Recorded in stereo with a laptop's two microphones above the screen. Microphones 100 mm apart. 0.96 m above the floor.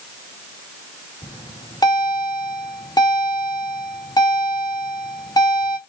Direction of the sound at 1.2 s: 40° left (ahead or behind).